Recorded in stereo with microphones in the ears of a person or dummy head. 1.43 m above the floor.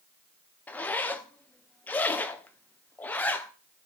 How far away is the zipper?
About 0.6 m.